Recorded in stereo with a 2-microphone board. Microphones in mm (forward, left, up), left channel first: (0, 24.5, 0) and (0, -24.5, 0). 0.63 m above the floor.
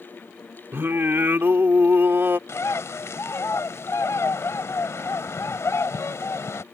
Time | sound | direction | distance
0.7 | singing | 50° right (ahead or behind) | ?
2.5 | a bird | 75° left (ahead or behind) | ?